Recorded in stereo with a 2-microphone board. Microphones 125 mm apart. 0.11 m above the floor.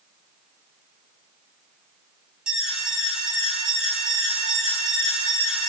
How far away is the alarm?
About 2.5 m.